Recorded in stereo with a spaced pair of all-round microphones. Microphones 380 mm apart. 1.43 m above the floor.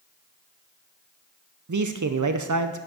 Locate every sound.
1.7 s a man speaking: 50° right (ahead or behind), 0.5 m